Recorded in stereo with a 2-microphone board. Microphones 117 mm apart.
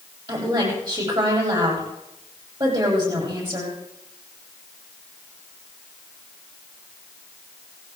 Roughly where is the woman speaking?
Right.